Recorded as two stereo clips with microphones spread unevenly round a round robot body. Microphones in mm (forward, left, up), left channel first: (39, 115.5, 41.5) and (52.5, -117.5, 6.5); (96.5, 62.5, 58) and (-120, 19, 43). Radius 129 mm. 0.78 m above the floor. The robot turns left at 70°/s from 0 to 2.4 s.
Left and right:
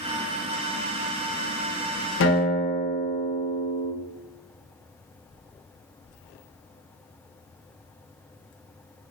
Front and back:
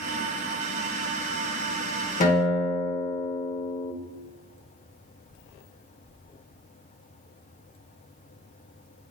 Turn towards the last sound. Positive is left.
turn(degrees=50)